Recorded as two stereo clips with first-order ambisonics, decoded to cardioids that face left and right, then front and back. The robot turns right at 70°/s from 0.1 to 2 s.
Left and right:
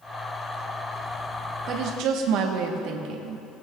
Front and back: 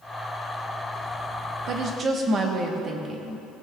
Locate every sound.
1.7 s a woman speaking: 140° right, 1.1 m; by 3.5 s 115° right, 1.1 m